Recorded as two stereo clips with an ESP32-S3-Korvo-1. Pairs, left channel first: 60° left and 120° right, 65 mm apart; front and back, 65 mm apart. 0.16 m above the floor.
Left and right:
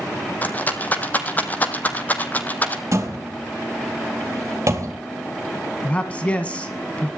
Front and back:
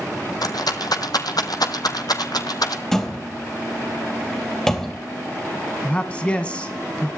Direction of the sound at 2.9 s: 80° right.